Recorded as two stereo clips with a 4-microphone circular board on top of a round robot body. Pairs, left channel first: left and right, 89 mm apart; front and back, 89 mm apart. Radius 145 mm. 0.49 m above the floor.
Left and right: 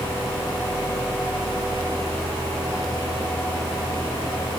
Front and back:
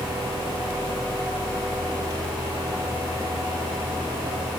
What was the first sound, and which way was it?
Only background noise.